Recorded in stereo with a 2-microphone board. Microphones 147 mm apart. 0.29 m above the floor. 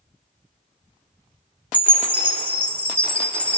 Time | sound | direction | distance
1.7 | a chime | 10° left (ahead or behind) | 0.7 m